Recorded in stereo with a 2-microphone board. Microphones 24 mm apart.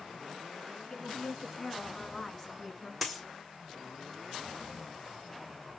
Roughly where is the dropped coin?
Centre.